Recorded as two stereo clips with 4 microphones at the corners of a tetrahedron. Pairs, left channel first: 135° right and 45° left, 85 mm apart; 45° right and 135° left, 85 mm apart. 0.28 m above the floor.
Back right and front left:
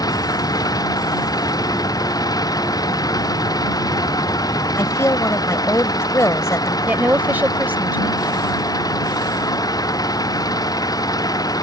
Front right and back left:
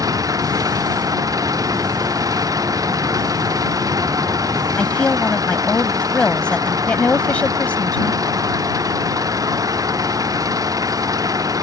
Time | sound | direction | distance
0.0 | an engine running | 175° right | ?
4.8 | a woman speaking | 110° right | ?
6.9 | a woman speaking | 10° left | ?